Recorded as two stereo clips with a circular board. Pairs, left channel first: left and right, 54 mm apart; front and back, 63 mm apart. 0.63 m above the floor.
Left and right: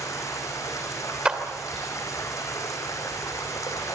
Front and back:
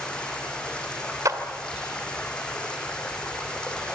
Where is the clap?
160° right, 2.5 m.